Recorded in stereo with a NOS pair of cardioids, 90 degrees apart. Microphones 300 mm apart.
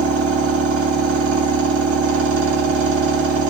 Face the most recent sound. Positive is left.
turn(degrees=-50)